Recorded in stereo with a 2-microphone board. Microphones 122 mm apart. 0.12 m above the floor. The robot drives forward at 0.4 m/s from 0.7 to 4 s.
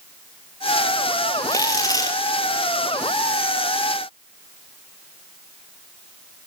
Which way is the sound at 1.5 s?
30° left (ahead or behind).